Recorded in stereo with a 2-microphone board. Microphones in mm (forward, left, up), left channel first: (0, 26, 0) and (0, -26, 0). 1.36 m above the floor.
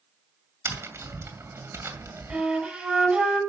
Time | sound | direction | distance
0.7 | tapping | 60° right (ahead or behind) | 2 m
2.3 | a flute | 20° right (ahead or behind) | 7 m